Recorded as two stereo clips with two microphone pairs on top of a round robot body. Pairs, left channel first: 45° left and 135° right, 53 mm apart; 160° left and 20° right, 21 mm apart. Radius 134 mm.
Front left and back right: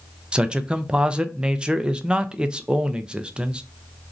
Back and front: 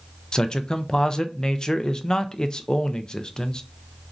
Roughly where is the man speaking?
Behind right.